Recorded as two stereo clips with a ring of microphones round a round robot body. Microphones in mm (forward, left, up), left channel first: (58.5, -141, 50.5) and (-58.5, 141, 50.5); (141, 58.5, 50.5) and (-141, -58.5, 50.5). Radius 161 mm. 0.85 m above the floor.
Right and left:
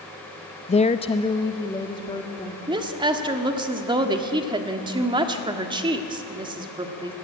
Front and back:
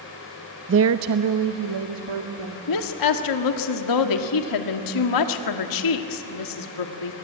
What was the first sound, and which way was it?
A woman speaking, 125° right.